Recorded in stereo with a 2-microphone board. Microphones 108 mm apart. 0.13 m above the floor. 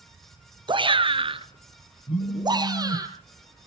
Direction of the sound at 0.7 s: 45° right (ahead or behind).